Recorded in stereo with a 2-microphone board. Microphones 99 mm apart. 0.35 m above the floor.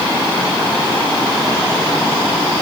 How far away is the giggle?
No giggle in this recording.